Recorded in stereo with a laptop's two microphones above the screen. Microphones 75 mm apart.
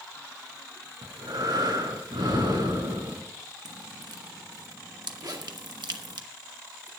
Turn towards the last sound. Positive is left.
turn(degrees=-65)  # may be behind; listen again after turning